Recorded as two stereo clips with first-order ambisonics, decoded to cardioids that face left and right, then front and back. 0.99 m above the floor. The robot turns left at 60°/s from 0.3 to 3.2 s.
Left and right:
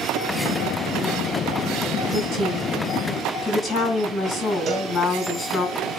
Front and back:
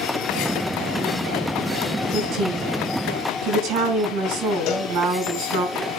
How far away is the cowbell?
About 3 m.